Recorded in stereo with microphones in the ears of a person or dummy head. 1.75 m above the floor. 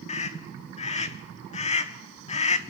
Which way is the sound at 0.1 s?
35° left (ahead or behind).